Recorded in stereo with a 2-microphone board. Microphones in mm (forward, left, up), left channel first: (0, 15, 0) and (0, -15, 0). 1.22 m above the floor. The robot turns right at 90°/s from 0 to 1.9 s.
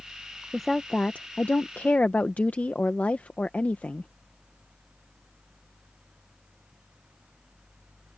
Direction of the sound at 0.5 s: Straight ahead.